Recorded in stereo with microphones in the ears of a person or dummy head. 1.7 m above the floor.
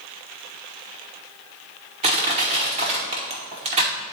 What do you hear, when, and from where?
2.0 s crushing: 30° right (ahead or behind), 1.1 m